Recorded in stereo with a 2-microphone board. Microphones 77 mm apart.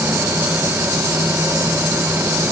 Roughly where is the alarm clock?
I don't hear an alarm clock.